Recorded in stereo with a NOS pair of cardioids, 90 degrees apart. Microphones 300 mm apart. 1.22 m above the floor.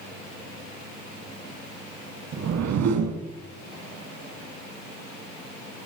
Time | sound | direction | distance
2.3 | a whoosh | 60° right | 2.0 m